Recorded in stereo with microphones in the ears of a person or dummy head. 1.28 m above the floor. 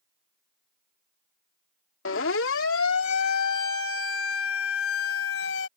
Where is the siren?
75° left (ahead or behind); by 5.7 s 90° left.